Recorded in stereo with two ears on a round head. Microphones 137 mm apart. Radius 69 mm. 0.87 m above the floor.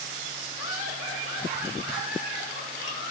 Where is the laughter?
75° left (ahead or behind), 2.5 m; by 3.1 s 55° left (ahead or behind), 4 m.